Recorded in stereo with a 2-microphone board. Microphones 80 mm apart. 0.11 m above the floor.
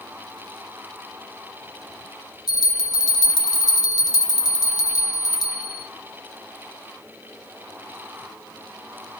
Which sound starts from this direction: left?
A bell, at 2.5 s.